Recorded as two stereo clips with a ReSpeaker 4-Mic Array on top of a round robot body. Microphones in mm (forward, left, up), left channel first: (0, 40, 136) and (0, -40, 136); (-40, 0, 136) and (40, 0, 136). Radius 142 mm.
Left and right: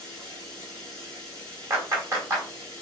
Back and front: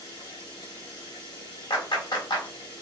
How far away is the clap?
About 3.5 m.